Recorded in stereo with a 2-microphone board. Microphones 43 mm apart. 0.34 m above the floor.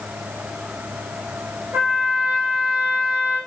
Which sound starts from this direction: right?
A trumpet, at 1.7 s.